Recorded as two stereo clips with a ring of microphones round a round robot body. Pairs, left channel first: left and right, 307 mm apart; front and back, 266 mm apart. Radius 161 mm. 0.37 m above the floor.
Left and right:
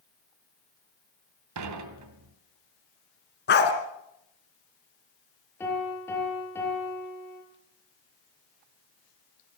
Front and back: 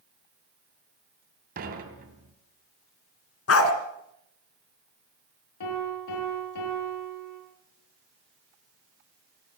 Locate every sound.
1.6 s dishes clattering: 120° right, 2.5 m
3.5 s a dog barking: 35° left, 2.5 m
5.6 s a piano: 5° left, 6.5 m